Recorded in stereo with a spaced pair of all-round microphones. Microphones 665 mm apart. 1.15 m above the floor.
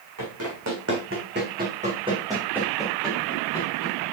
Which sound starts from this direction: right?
Running footsteps, at 0.2 s.